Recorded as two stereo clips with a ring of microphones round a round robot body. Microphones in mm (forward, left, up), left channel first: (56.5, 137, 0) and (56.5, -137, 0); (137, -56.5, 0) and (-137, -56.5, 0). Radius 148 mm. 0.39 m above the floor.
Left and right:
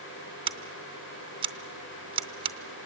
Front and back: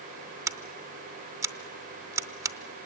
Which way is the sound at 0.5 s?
120° right.